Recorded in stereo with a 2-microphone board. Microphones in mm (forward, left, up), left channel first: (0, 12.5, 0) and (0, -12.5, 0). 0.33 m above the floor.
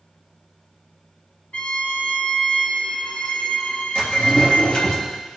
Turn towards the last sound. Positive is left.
turn(degrees=50)  # may be behind; listen again after turning